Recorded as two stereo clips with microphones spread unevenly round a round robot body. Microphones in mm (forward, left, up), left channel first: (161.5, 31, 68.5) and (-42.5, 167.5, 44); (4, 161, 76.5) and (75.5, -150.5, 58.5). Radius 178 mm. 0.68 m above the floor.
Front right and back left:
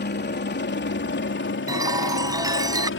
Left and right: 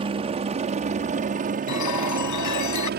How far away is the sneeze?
I don't hear a sneeze.